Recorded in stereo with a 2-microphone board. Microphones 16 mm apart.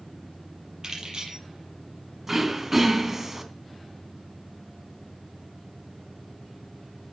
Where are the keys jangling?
40° right (ahead or behind), 6 m.